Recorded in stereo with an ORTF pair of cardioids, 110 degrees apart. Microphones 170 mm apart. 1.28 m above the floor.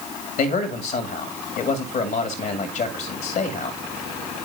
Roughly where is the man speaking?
Left.